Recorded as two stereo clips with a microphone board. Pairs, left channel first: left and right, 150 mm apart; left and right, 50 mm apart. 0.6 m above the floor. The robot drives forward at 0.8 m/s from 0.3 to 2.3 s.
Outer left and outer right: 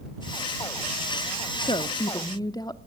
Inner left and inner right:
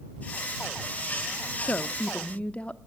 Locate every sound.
1.6 s a woman speaking: 35° left (ahead or behind), 0.7 m; by 2.8 s 25° left (ahead or behind), 0.9 m